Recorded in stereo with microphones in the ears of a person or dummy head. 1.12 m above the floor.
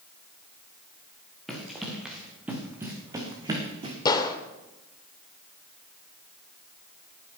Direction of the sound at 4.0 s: 20° left (ahead or behind).